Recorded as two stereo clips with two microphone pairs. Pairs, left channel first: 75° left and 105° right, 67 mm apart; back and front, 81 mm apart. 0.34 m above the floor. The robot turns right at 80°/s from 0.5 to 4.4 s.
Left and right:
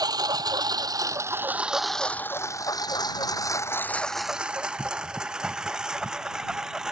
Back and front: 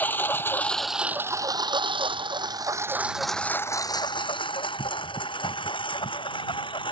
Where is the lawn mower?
110° right; by 6.9 s 175° left.